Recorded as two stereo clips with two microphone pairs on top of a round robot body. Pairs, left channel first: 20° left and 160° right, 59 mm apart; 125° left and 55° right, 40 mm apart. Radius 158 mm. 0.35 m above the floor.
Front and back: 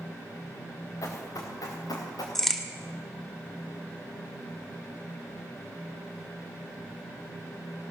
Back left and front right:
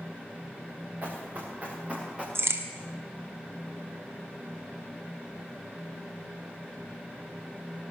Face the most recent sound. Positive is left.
turn(degrees=-60)